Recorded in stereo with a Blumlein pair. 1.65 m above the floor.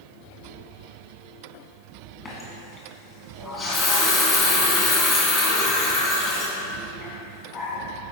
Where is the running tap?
25° left, 1.9 m.